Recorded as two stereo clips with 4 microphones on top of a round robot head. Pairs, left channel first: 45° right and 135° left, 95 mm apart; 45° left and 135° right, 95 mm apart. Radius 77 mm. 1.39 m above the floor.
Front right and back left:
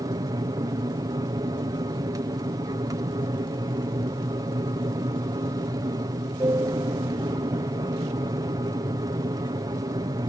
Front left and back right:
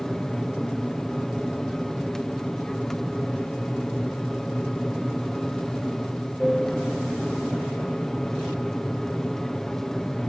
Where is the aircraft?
130° left.